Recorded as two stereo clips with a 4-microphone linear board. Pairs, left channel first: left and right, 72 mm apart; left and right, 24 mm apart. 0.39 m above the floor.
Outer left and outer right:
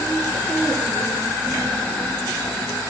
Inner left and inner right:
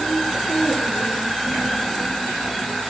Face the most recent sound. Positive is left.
No sound to turn to.